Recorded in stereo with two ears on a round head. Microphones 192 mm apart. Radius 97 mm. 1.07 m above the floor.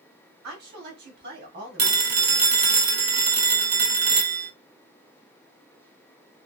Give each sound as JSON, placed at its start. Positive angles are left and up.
{"t": 0.4, "sound": "a woman speaking", "side_deg": -50, "distance_m": 3.0}
{"t": 1.8, "sound": "a phone ringing", "side_deg": -50, "distance_m": 1.1}